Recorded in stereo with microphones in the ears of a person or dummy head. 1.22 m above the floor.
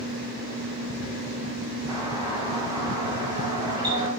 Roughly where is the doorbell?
Centre.